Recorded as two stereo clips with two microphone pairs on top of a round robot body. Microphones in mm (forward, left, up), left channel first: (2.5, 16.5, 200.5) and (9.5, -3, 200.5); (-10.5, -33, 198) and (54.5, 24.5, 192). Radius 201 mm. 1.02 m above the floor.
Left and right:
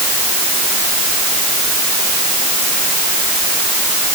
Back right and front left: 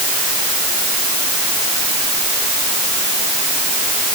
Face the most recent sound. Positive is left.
No sound to turn to.